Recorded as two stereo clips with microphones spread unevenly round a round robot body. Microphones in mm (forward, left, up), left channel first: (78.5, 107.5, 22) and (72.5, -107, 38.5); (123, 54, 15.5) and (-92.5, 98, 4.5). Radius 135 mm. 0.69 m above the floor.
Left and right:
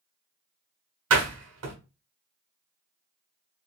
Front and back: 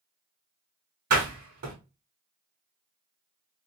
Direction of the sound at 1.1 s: 135° right.